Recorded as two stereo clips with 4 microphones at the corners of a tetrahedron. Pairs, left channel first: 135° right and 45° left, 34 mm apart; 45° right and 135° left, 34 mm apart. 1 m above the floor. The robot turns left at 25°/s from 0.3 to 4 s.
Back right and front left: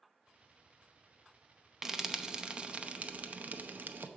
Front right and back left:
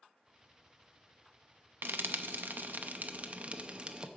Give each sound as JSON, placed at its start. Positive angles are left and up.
{"t": 1.8, "sound": "frying", "azimuth_deg": 125, "distance_m": 0.7}